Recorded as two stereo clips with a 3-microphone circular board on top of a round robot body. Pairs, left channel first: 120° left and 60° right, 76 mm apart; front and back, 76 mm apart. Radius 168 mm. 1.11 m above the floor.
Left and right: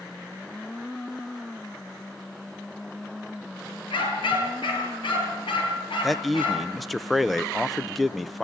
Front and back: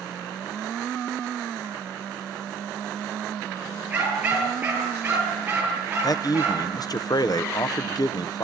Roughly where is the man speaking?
Ahead left.